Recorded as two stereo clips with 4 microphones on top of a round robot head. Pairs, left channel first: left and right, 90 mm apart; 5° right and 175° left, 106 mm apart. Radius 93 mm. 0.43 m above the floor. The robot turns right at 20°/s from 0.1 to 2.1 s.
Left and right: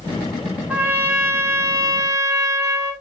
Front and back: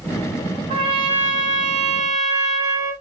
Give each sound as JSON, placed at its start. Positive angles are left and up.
{"t": 0.7, "sound": "a trumpet", "azimuth_deg": -165, "distance_m": 1.4}